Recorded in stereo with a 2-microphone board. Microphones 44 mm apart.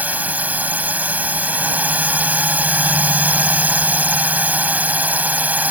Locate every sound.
0.0 s a drone: 35° right (ahead or behind)